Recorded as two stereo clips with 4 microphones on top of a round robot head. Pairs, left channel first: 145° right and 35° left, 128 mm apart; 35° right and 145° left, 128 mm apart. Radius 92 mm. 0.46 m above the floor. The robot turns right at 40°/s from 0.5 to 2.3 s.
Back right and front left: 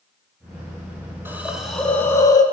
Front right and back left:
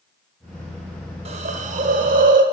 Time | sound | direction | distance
1.2 | a hiss | 110° left | 0.9 m